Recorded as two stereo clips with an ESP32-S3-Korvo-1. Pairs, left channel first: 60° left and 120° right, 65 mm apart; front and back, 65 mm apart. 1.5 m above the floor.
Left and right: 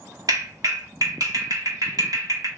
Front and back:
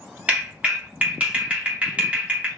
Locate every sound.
0.3 s a clap: 115° right, 1.5 m